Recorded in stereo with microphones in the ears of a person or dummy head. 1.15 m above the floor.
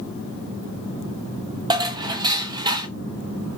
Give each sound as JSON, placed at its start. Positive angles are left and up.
{"t": 1.7, "sound": "dishes clattering", "side_deg": -20, "distance_m": 0.6}